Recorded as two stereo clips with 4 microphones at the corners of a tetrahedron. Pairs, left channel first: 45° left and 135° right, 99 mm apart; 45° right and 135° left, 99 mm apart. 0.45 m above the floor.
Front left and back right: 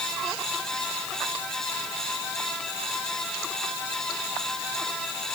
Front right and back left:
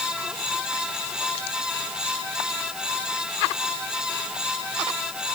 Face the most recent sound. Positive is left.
No sound to turn to.